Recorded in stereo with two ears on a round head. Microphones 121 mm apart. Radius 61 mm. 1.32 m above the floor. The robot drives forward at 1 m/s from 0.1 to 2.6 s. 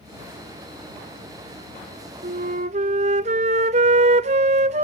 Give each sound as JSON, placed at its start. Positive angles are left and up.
{"t": 2.2, "sound": "a flute", "side_deg": -55, "distance_m": 0.5}